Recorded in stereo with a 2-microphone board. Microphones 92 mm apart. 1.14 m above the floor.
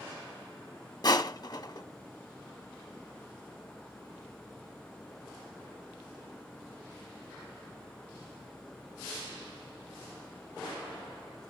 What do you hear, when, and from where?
1.0 s crushing: 45° left (ahead or behind), 1.1 m